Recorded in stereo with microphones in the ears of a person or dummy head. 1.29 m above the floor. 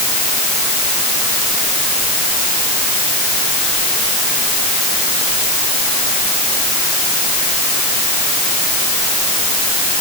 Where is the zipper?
No zipper in this recording.